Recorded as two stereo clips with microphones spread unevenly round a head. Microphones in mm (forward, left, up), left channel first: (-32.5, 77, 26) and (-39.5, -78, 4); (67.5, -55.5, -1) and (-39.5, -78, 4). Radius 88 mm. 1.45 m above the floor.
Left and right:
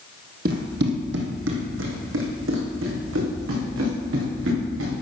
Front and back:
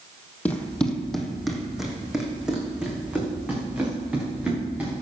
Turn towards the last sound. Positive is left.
turn(degrees=-90)